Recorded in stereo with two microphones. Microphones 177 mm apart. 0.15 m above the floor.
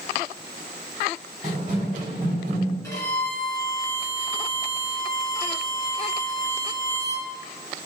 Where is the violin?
20° left (ahead or behind), 1.2 m.